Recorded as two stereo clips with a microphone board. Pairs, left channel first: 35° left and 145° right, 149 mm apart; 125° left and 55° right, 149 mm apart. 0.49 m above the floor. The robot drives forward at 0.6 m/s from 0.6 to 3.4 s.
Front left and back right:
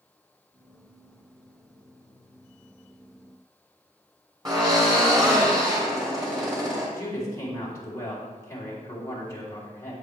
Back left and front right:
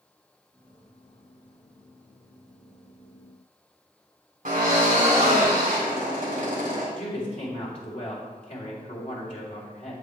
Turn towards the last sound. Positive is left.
turn(degrees=100)